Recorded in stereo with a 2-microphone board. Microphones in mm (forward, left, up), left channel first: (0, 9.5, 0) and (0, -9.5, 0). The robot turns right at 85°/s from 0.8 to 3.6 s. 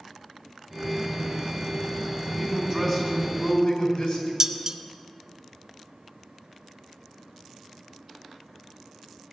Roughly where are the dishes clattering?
Right.